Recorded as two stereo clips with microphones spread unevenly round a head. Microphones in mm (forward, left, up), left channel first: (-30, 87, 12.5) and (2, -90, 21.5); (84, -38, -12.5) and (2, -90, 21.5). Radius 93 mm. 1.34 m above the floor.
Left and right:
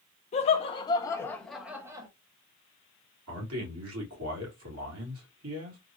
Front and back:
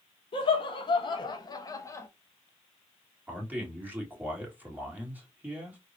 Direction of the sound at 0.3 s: 50° left.